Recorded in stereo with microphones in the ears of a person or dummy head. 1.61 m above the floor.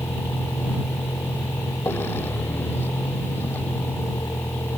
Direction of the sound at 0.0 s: 15° left (ahead or behind).